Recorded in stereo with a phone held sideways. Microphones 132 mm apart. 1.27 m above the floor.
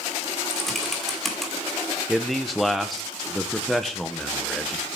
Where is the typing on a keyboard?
Centre (ahead or behind), 2 m.